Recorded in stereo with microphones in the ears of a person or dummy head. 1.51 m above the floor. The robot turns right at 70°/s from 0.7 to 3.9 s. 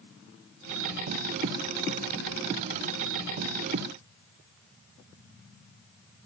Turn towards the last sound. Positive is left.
No sound to turn to.